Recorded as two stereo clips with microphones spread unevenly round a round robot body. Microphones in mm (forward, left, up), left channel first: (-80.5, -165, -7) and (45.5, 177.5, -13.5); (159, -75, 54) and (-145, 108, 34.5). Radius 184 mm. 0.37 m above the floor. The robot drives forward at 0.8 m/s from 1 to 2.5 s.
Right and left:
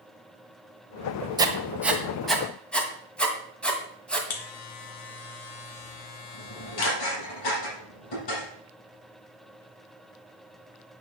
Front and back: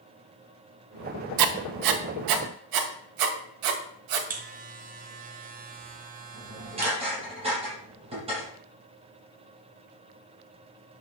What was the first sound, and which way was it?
Writing, 145° left.